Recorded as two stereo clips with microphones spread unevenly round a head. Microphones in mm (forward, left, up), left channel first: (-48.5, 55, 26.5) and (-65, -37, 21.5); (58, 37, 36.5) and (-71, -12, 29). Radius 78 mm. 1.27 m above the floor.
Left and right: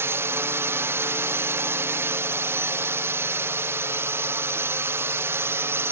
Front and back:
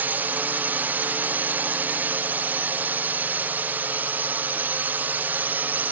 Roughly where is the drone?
Right.